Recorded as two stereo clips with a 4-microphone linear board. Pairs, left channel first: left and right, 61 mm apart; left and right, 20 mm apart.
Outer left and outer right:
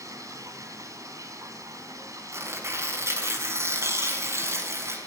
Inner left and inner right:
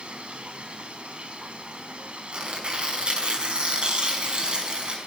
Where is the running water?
65° right (ahead or behind), 2.5 m.